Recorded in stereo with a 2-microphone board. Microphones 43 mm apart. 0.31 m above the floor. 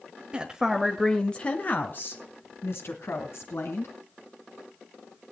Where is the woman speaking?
25° right (ahead or behind), 1.2 m; by 3.9 s 70° left (ahead or behind), 3 m.